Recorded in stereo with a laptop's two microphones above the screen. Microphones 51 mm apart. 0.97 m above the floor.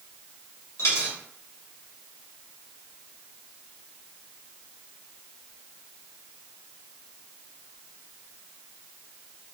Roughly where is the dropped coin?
Left.